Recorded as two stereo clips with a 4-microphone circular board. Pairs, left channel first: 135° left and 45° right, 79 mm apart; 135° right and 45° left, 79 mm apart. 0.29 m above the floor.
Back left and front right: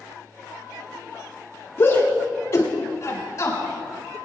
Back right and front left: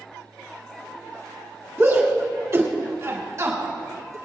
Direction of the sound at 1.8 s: 85° left.